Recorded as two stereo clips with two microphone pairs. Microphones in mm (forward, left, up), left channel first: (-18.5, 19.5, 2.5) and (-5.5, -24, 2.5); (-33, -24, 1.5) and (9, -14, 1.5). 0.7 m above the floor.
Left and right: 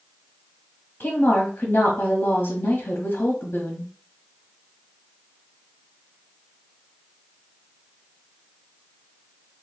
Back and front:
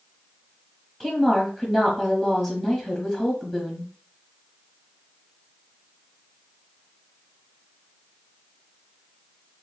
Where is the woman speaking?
90° left, 1.1 m.